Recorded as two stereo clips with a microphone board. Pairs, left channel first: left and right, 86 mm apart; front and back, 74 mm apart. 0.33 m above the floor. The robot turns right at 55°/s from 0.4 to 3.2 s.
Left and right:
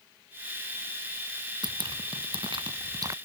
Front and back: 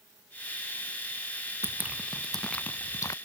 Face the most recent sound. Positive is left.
turn(degrees=-35)